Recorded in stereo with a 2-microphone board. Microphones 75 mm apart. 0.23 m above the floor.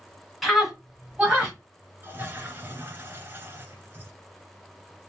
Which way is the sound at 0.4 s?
Centre (ahead or behind).